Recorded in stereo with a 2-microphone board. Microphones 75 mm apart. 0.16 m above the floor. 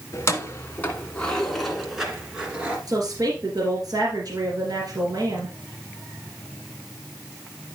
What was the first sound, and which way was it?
Keys jangling, 40° left (ahead or behind).